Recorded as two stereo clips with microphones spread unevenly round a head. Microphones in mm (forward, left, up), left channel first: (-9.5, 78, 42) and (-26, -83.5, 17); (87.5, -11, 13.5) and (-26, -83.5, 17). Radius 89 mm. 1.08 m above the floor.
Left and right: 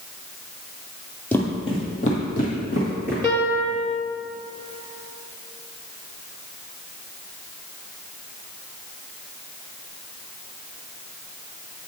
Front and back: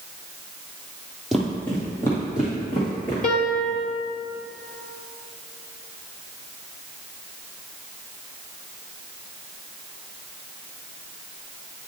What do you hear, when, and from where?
1.3 s footsteps: 130° left, 1.1 m; by 3.1 s 100° left, 2.5 m
3.2 s a piano: 10° left, 1.5 m